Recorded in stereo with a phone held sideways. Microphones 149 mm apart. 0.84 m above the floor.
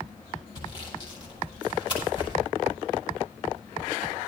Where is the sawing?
30° left (ahead or behind), 5 m.